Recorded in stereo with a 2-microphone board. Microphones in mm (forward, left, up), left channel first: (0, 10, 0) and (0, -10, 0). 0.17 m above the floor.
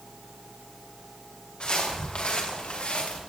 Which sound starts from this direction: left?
Footsteps, at 1.6 s.